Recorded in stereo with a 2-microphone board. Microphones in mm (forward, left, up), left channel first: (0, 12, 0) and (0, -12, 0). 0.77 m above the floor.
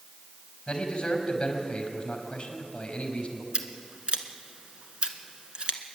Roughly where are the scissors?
Right.